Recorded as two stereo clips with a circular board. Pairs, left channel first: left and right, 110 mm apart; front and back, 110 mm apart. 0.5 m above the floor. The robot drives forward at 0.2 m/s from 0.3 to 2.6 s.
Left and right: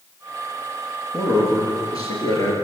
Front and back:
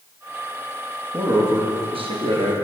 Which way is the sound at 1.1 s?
145° left.